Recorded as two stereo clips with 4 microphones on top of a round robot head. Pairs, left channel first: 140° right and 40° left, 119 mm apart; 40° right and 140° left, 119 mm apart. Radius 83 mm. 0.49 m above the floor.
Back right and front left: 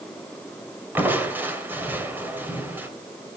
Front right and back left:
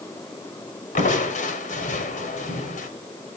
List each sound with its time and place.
0.9 s crushing: 35° right, 2.5 m